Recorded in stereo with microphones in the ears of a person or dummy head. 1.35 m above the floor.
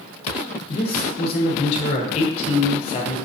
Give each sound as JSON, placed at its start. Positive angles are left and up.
{"t": 0.7, "sound": "a man speaking", "side_deg": 50, "distance_m": 0.8}